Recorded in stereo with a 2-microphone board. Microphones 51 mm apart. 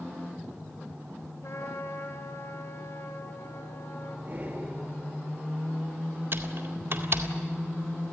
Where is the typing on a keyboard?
50° right (ahead or behind), 2 m.